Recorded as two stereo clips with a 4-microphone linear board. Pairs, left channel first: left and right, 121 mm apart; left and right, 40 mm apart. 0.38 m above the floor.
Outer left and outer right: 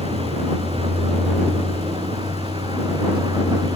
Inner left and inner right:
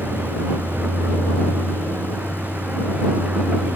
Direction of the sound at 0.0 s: 50° right (ahead or behind).